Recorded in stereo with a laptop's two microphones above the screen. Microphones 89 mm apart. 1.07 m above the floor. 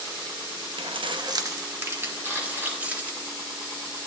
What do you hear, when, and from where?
0.8 s keys jangling: 75° right (ahead or behind), 0.7 m; by 3.2 s 15° right (ahead or behind), 3.5 m
2.2 s a camera shutter: 30° right (ahead or behind), 5 m